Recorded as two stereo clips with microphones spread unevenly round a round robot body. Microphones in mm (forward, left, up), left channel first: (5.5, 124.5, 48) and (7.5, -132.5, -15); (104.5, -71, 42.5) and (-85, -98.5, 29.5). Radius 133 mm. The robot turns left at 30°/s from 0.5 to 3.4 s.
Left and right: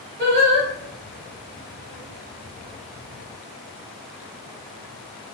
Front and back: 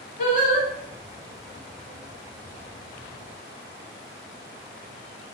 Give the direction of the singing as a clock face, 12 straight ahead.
1 o'clock.